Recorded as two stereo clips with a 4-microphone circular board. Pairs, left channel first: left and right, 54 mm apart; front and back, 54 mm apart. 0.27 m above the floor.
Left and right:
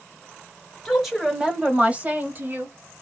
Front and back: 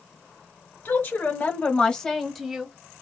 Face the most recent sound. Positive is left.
turn(degrees=-105)